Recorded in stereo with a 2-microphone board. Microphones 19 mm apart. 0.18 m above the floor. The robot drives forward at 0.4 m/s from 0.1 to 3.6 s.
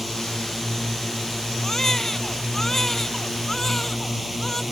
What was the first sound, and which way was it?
A drone, 5° left (ahead or behind).